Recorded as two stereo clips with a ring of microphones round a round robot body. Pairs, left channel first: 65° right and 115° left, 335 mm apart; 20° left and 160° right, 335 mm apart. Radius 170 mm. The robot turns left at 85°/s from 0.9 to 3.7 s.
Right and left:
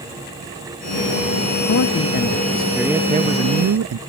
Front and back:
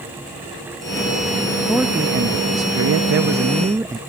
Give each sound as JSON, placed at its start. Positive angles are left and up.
{"t": 1.6, "sound": "a man speaking", "azimuth_deg": -60}